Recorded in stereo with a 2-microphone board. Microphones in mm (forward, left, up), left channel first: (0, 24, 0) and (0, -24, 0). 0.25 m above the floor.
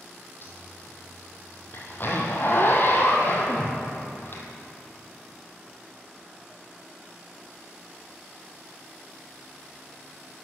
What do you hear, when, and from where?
0.4 s a zipper: 45° left (ahead or behind), 1.5 m